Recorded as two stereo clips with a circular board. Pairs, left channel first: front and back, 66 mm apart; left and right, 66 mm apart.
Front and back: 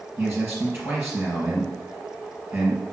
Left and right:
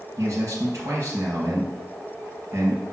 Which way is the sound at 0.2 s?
130° right.